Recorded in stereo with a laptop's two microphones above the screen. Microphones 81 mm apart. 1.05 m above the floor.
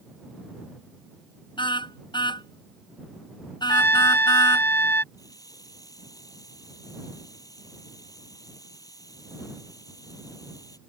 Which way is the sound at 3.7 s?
25° left (ahead or behind).